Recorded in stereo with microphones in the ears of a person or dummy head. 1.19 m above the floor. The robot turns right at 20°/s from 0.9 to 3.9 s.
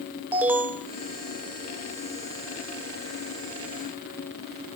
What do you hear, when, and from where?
0.3 s an alarm: 10° right (ahead or behind), 0.5 m